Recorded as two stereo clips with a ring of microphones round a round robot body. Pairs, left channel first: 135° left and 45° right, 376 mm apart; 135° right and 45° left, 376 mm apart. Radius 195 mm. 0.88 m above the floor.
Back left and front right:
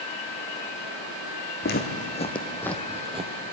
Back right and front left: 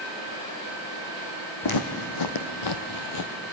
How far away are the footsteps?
About 2 m.